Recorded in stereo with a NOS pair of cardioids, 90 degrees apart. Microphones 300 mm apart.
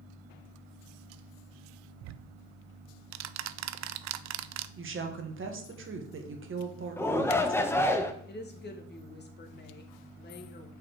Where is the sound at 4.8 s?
45° right, 1.6 m.